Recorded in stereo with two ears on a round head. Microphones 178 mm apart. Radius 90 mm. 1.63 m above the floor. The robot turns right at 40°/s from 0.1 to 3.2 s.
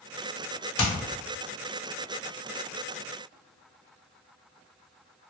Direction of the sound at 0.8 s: 75° left (ahead or behind).